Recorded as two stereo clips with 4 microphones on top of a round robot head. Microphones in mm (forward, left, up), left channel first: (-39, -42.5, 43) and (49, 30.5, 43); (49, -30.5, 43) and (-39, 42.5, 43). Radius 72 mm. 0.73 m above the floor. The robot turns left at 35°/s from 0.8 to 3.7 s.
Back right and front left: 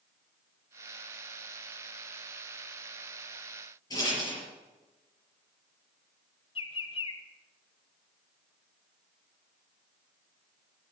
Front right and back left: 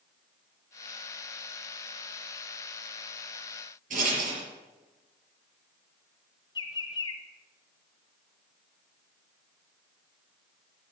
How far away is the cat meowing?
I don't hear a cat meowing.